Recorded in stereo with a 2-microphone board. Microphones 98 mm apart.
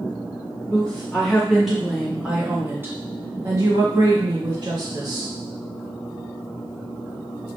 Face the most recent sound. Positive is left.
turn(degrees=-55)  # may be behind; listen again after turning